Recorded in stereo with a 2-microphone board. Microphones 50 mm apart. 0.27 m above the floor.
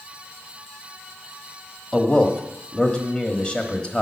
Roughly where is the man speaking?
Left.